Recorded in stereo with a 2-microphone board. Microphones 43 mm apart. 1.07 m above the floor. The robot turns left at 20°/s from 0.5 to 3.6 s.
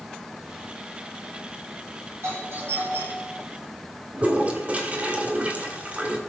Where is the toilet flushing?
30° right (ahead or behind), 1.8 m.